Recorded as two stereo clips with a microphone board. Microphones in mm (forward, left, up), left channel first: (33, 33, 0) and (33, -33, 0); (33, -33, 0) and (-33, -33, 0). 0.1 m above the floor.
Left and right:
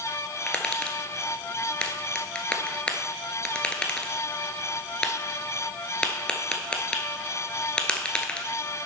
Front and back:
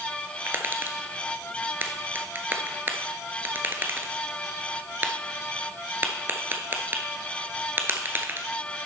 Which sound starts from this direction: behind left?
Tapping, at 0.5 s.